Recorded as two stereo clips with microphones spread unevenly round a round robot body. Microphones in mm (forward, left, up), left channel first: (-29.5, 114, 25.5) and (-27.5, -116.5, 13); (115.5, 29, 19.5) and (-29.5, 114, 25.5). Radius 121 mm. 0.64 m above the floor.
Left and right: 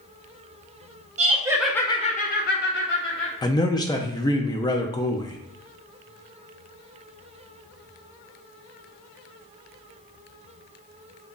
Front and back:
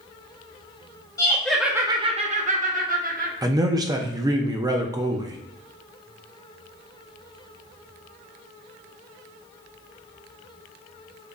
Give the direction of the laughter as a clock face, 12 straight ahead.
3 o'clock.